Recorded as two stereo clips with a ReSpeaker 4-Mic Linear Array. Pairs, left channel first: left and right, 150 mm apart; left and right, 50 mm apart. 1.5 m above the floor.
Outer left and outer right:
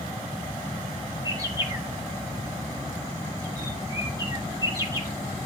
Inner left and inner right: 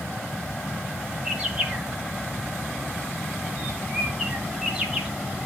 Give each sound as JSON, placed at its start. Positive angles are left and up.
{"t": 1.2, "sound": "a bird", "side_deg": -20, "distance_m": 1.6}